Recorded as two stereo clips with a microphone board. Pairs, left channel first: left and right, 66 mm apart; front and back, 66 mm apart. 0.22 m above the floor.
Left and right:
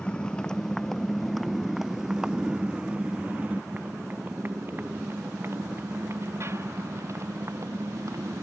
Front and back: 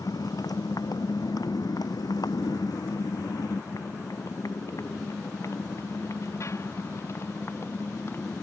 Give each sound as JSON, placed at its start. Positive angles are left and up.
{"t": 0.0, "sound": "a motorcycle", "azimuth_deg": 15}